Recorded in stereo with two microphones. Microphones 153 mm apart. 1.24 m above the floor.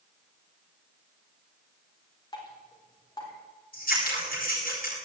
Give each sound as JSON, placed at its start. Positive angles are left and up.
{"t": 2.3, "sound": "dripping", "side_deg": 25, "distance_m": 4.0}
{"t": 3.7, "sound": "scissors", "side_deg": 70, "distance_m": 7.0}